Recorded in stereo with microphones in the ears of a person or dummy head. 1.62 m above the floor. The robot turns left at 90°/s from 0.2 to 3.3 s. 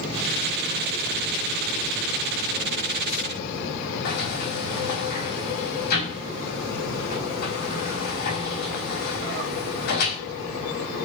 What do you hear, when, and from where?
4.0 s a sliding door: 50° left (ahead or behind), 4.5 m